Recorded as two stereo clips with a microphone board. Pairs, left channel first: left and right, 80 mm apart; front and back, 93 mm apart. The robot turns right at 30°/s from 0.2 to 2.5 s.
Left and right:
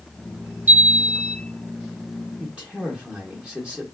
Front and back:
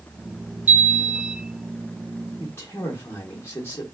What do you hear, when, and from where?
0.7 s a chime: 135° right, 0.7 m; by 1.4 s 115° right, 0.7 m
2.4 s a man speaking: 30° right, 1.0 m